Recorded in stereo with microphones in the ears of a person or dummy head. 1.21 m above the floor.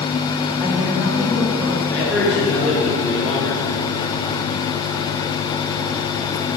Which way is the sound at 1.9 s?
Centre (ahead or behind).